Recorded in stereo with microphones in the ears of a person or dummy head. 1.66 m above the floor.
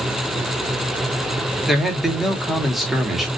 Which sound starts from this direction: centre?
A man speaking, at 1.7 s.